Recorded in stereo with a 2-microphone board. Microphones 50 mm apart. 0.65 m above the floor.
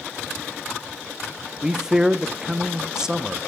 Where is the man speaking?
15° right (ahead or behind), 0.5 m.